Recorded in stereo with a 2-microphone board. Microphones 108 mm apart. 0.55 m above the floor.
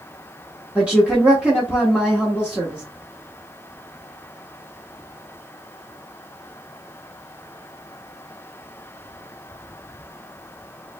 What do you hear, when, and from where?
0.8 s a woman speaking: 10° right (ahead or behind), 1.2 m